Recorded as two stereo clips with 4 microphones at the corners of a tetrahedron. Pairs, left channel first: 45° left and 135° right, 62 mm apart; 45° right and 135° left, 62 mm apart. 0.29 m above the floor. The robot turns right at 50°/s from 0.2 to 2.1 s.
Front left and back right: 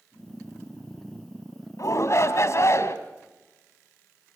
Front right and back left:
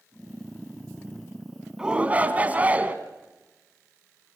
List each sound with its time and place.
1.8 s a shout: 60° left, 2.5 m; by 3.0 s 75° left, 2.5 m